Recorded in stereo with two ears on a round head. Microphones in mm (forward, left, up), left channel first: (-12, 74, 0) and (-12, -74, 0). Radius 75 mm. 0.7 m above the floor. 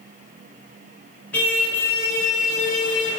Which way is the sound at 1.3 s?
10° left (ahead or behind).